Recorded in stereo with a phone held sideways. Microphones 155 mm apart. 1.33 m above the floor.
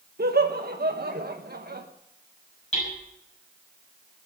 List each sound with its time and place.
0.2 s laughter: 85° right, 1.2 m
2.7 s hammering: 40° left (ahead or behind), 8.5 m